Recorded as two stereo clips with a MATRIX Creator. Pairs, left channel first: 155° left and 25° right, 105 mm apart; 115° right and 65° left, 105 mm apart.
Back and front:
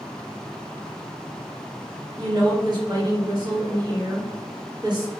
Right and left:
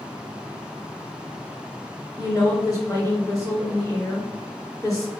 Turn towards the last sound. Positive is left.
turn(degrees=-60)